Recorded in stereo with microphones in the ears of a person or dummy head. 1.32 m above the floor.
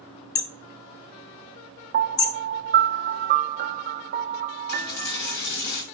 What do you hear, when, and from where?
0.3 s hammering: 25° left (ahead or behind), 0.6 m
1.9 s a piano: 45° right (ahead or behind), 0.6 m
4.7 s a dropped coin: 60° left (ahead or behind), 2.5 m